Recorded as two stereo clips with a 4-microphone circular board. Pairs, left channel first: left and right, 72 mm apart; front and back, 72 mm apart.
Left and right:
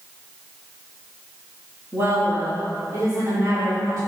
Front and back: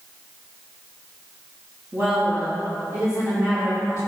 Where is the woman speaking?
130° right, 3 m; by 4.0 s 135° right, 5 m.